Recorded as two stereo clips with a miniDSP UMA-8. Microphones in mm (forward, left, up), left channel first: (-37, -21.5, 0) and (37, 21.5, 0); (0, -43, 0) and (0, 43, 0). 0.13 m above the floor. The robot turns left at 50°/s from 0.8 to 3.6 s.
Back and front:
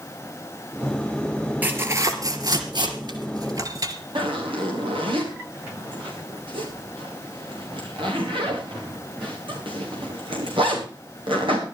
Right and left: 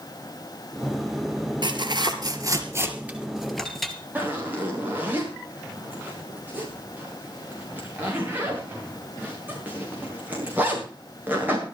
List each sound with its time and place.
1.6 s tearing paper: 95° left, 2.5 m; by 3.9 s 5° right, 2.5 m
4.2 s a zipper: 20° left, 6.5 m